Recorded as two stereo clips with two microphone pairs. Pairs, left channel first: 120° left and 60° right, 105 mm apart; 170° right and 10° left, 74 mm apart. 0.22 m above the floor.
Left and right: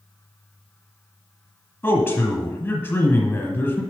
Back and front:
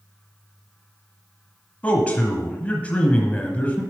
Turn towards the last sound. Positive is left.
turn(degrees=155)